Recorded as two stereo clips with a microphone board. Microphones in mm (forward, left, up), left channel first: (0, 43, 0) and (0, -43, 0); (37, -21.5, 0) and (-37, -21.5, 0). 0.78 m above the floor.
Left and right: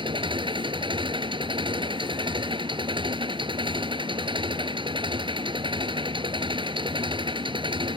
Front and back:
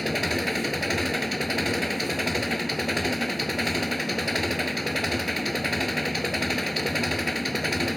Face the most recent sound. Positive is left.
turn(degrees=-90)